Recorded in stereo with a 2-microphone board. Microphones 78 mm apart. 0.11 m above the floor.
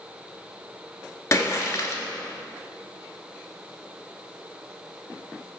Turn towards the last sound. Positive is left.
turn(degrees=40)  # may be behind; listen again after turning